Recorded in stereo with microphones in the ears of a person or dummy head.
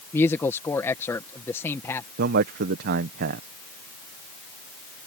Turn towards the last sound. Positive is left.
turn(degrees=-60)  # may be behind; listen again after turning